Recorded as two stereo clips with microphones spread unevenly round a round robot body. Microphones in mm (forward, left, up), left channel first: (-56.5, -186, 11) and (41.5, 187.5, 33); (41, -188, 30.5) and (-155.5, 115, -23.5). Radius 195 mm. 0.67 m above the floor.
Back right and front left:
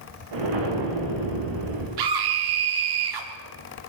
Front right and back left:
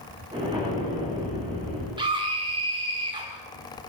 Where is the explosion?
40° left, 8 m.